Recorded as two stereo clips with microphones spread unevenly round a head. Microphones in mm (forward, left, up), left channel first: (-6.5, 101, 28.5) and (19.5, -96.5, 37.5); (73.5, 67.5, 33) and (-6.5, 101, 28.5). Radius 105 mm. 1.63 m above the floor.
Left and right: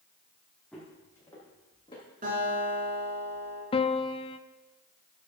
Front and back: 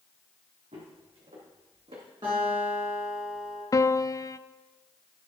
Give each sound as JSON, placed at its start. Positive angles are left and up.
{"t": 0.7, "sound": "footsteps", "azimuth_deg": -175, "distance_m": 3.5}
{"t": 2.2, "sound": "a guitar", "azimuth_deg": -135, "distance_m": 6.0}
{"t": 3.7, "sound": "a piano", "azimuth_deg": 35, "distance_m": 0.5}